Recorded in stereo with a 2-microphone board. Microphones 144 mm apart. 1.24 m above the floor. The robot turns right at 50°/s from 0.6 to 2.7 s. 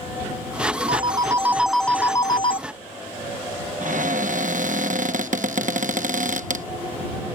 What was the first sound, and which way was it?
A phone ringing, 40° right.